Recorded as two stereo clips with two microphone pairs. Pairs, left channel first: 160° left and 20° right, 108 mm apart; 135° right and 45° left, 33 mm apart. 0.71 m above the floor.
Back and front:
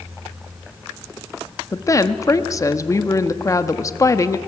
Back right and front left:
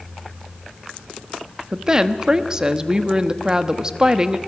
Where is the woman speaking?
110° left, 0.9 m.